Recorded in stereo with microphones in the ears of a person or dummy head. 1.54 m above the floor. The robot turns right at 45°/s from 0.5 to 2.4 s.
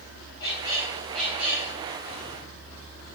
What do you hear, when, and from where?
0.4 s a squeak: 150° left, 0.8 m; by 1.7 s 155° right, 0.8 m